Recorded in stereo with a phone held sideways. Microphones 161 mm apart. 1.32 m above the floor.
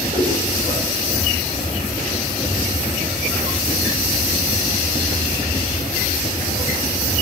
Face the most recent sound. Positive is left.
turn(degrees=-35)  # may be behind; listen again after turning